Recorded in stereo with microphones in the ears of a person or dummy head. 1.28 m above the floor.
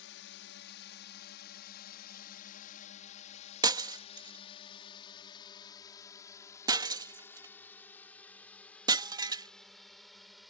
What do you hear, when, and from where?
0.0 s a drone: 65° left (ahead or behind); by 10.5 s centre (ahead or behind)
3.6 s breaking glass: 20° right (ahead or behind)